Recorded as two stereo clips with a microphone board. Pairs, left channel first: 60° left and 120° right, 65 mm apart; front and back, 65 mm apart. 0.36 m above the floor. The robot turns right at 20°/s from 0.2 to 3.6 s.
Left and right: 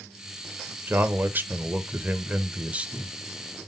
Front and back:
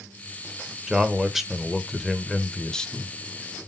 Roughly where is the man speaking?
Right.